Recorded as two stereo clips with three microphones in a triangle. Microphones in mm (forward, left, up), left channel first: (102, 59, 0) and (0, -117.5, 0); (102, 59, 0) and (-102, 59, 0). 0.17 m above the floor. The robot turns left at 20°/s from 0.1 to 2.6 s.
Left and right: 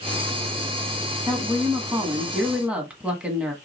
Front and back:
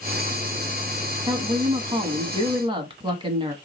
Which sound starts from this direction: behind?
A woman speaking, at 1.3 s.